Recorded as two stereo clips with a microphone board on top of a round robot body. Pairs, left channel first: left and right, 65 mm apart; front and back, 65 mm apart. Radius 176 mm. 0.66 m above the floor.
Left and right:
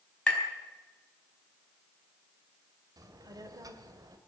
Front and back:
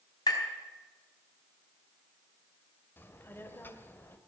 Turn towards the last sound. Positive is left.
turn(degrees=-60)